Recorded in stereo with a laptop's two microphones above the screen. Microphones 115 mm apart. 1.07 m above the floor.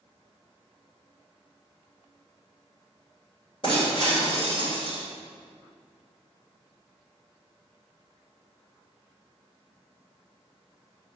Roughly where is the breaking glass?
Left.